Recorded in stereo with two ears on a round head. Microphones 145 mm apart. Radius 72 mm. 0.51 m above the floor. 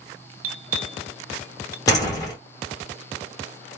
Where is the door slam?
20° left (ahead or behind), 2 m.